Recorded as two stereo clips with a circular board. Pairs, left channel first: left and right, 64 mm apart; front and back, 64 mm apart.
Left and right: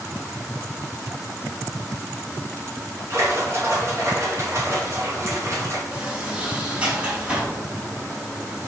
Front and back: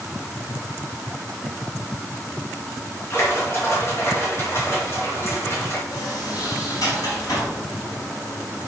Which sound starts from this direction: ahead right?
A splash, at 3.1 s.